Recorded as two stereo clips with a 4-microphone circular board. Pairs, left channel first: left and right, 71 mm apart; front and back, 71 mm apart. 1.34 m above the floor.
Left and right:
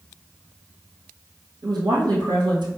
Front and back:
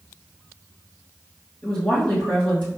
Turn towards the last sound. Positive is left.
turn(degrees=-80)